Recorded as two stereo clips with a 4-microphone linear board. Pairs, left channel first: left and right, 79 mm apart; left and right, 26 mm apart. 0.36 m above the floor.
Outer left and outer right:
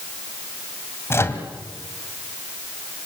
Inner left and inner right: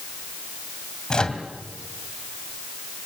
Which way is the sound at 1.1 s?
35° left (ahead or behind).